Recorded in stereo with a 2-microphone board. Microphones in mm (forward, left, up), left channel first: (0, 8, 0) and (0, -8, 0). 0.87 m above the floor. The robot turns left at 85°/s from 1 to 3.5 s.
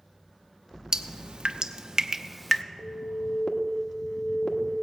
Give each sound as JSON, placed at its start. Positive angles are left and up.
{"t": 0.9, "sound": "dripping", "side_deg": -65, "distance_m": 0.5}
{"t": 2.8, "sound": "an alarm", "azimuth_deg": 120, "distance_m": 1.1}